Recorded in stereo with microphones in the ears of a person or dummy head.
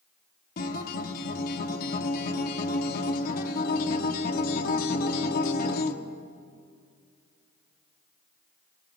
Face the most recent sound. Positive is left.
turn(degrees=50)  # may be behind; listen again after turning